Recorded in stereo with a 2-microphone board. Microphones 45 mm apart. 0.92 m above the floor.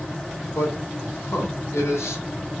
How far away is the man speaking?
About 3.5 m.